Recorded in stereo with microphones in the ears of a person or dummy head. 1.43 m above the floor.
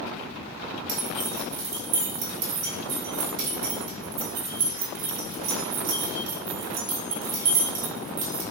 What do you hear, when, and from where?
0.9 s keys jangling: 50° right (ahead or behind), 1.5 m